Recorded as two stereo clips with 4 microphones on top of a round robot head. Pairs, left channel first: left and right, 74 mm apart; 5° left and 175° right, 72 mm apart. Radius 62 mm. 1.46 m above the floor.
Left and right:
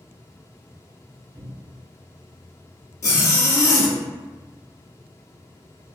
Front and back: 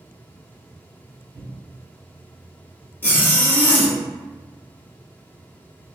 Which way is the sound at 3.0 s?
60° left.